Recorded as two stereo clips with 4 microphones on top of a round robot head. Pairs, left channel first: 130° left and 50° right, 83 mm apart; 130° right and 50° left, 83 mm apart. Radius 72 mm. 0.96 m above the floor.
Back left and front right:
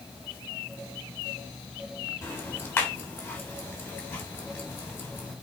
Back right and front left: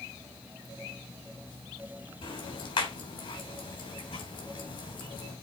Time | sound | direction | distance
2.2 | ticking | 160° right | 3.5 m